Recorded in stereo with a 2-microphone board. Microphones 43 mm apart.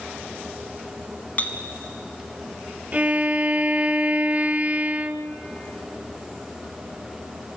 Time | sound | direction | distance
1.4 | a clink | 40° left (ahead or behind) | 1.1 m
2.9 | a violin | 30° right (ahead or behind) | 0.9 m